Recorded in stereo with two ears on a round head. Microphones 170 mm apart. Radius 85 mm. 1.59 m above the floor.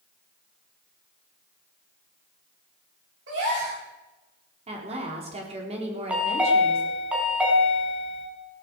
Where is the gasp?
65° right (ahead or behind), 8.5 m.